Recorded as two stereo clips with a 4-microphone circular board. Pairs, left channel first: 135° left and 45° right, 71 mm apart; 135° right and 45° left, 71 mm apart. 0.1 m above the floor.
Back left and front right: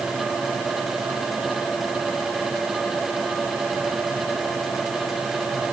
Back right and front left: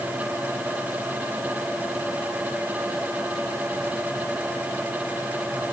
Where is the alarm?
I don't hear an alarm.